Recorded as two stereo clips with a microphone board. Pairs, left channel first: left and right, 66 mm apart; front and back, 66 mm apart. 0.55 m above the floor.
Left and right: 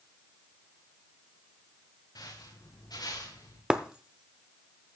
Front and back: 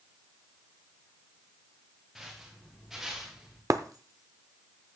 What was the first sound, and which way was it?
Footsteps, 95° left.